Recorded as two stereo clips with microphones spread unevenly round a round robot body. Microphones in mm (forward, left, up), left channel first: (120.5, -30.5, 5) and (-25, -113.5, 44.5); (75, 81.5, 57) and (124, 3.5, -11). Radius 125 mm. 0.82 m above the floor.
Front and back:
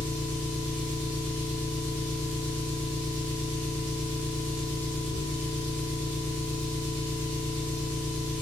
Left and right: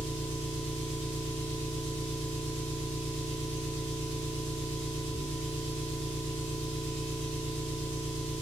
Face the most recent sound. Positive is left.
turn(degrees=-170)